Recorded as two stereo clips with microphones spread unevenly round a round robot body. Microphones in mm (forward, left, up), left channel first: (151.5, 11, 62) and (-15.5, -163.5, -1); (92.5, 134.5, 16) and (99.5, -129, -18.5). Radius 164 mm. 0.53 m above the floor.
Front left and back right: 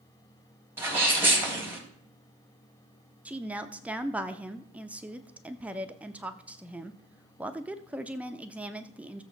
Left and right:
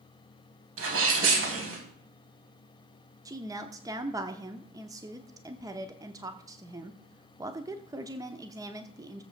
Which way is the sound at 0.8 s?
55° right.